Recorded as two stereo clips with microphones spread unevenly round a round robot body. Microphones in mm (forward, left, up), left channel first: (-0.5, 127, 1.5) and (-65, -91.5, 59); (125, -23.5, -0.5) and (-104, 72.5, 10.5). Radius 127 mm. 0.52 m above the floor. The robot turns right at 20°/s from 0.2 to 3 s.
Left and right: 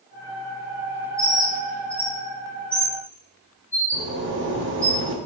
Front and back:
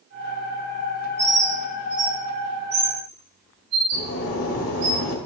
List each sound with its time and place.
1.2 s a bird: 155° left, 3.5 m; by 4.9 s 170° right, 3.5 m
3.9 s a zipper: 55° right, 1.5 m